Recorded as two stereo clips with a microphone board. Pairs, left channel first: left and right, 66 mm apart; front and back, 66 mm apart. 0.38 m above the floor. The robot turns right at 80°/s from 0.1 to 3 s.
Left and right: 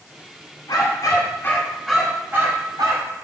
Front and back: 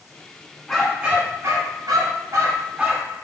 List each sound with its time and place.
0.7 s a dog barking: 80° left, 1.3 m; by 3.1 s 95° right, 1.3 m